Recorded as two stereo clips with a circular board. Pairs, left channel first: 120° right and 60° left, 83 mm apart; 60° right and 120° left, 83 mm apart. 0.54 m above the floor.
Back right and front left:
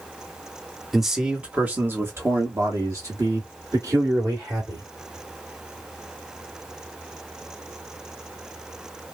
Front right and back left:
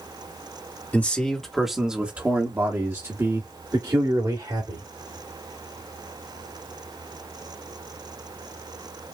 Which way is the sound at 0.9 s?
30° right.